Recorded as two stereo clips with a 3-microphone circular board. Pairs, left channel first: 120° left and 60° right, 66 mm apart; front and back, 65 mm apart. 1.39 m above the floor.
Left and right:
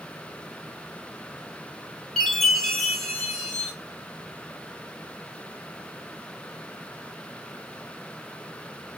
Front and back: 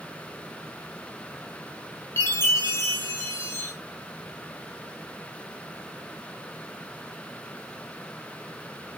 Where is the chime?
35° left, 1.4 m.